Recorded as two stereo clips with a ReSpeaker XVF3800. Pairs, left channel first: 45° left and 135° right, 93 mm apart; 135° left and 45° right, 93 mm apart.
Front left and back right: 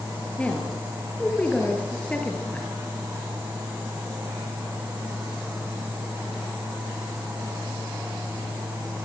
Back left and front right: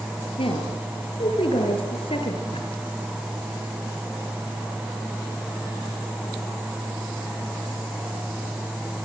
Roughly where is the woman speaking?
Behind left.